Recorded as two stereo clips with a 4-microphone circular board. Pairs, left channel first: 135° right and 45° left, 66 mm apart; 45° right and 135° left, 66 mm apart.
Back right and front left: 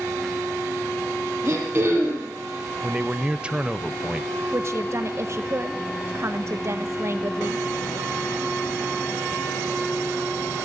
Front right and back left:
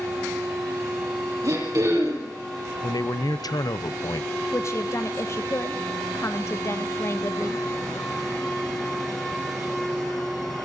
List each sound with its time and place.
1.4 s throat clearing: 100° left, 7 m
2.8 s a man speaking: 30° right, 0.9 m
4.5 s a woman speaking: straight ahead, 1.1 m